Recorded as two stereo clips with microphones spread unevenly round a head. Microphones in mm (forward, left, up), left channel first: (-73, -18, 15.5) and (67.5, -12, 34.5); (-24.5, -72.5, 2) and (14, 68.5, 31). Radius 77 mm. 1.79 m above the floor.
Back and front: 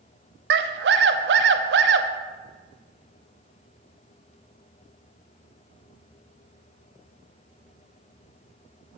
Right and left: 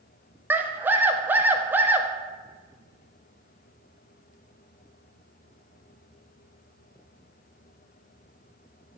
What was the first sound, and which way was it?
A scream, straight ahead.